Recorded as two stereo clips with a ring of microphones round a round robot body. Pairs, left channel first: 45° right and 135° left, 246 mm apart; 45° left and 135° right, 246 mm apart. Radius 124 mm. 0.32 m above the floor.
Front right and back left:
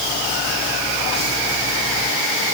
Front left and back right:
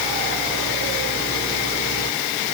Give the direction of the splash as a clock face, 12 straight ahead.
I don't hear a splash.